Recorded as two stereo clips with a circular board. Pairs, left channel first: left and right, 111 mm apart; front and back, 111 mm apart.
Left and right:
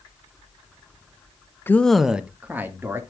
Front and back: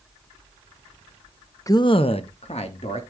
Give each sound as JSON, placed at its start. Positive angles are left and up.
{"t": 1.7, "sound": "a man speaking", "azimuth_deg": 35, "distance_m": 0.6}